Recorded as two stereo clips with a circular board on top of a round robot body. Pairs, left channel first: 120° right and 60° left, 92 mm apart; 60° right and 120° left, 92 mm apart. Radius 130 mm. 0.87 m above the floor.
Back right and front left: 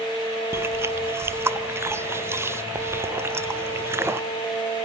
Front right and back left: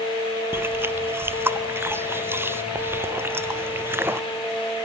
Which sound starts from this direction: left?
Chewing, at 0.5 s.